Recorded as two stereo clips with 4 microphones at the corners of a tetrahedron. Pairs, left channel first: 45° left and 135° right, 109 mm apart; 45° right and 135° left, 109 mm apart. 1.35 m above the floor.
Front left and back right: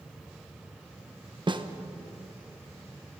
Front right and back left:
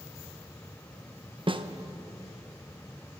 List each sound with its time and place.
1.5 s a snare drum: straight behind, 0.9 m